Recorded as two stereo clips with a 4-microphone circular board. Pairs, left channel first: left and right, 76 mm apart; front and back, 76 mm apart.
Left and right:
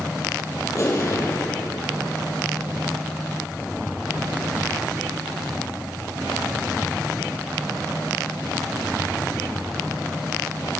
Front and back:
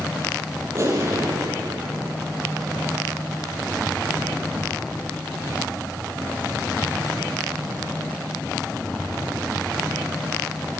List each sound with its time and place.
0.8 s an explosion: 130° left, 4 m